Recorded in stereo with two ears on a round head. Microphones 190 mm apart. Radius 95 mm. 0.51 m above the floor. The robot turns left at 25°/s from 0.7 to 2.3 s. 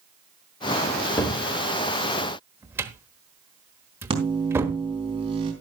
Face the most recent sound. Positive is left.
turn(degrees=-25)  # may be behind; listen again after turning